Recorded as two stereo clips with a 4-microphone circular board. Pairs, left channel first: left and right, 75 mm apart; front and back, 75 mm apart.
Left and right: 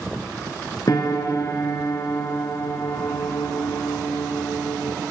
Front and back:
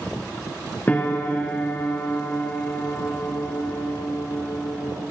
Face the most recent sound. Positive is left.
turn(degrees=65)